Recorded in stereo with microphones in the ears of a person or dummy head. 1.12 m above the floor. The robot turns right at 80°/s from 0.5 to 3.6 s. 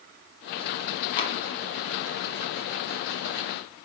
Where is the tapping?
25° left (ahead or behind), 0.8 m; by 1.4 s 30° left (ahead or behind), 0.8 m.